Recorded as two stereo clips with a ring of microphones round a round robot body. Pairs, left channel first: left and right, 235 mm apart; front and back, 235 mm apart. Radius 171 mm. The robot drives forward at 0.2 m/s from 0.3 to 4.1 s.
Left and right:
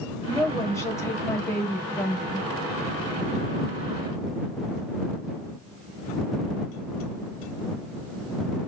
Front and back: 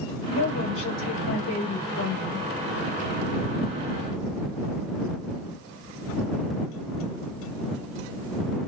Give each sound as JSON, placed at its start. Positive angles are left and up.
{"t": 0.3, "sound": "a woman speaking", "azimuth_deg": 10, "distance_m": 1.4}